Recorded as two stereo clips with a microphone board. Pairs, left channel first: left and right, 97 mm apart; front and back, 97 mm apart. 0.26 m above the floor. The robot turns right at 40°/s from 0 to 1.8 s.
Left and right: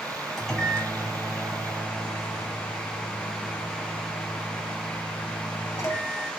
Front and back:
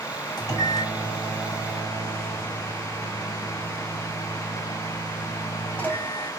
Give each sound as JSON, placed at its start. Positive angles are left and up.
{"t": 0.4, "sound": "a microwave", "azimuth_deg": 5, "distance_m": 1.0}